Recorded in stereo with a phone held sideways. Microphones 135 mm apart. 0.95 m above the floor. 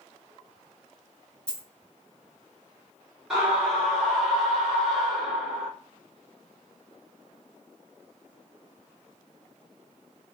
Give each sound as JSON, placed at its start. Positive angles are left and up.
{"t": 1.5, "sound": "a dropped coin", "side_deg": 5, "distance_m": 1.1}
{"t": 3.3, "sound": "a scream", "side_deg": -5, "distance_m": 1.2}